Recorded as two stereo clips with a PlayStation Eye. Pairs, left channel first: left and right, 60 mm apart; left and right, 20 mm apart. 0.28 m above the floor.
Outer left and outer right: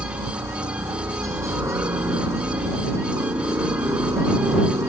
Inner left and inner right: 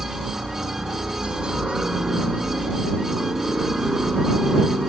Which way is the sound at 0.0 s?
55° right (ahead or behind).